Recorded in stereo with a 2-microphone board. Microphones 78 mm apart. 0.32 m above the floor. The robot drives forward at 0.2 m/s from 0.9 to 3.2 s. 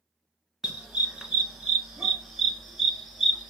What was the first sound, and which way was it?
A dog barking, 5° right (ahead or behind).